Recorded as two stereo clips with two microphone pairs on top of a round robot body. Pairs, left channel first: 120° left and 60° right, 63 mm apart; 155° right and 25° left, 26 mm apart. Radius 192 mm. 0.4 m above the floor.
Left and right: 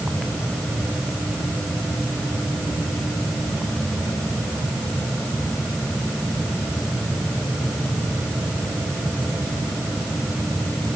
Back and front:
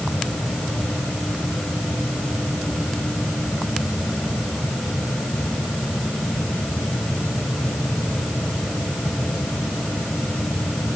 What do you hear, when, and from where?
Only background noise.